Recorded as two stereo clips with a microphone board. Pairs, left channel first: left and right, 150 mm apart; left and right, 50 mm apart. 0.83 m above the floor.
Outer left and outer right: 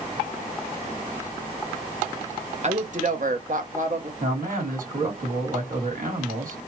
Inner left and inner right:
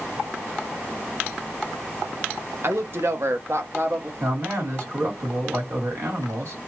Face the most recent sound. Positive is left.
turn(degrees=-65)  # may be behind; listen again after turning